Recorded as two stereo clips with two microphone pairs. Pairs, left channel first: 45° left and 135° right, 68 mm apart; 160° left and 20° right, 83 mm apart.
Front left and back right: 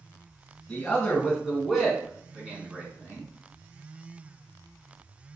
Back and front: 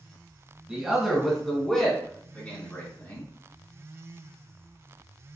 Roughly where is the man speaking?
Ahead left.